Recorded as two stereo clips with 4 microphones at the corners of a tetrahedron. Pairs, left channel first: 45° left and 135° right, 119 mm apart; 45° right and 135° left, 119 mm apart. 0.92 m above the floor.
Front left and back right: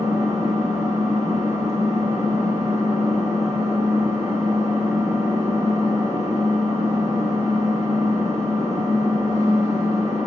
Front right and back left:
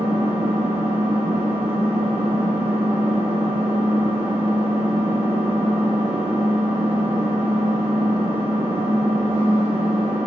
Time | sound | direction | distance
0.0 | an engine running | 165° left | 3 m